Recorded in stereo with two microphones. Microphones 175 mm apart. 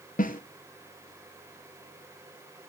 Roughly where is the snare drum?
Left.